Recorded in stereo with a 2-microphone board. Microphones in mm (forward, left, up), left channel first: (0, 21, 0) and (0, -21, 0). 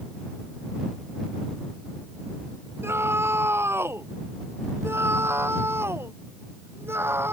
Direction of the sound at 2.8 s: 80° right.